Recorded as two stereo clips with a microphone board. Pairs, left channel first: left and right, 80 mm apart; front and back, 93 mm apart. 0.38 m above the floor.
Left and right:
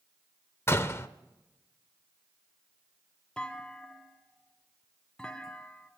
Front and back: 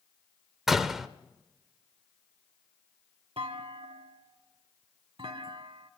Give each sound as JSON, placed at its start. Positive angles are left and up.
{"t": 0.7, "sound": "a door slam", "azimuth_deg": 95, "distance_m": 0.6}
{"t": 3.4, "sound": "a clunk", "azimuth_deg": 170, "distance_m": 0.7}